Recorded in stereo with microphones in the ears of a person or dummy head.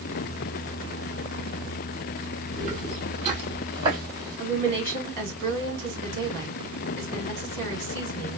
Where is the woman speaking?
60° right (ahead or behind), 3 m.